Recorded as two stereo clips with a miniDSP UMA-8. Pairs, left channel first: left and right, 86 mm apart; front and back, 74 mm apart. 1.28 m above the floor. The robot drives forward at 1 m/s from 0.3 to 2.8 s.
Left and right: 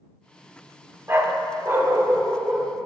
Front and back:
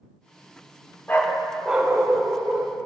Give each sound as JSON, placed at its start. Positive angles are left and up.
{"t": 1.1, "sound": "a dog barking", "azimuth_deg": -45, "distance_m": 1.0}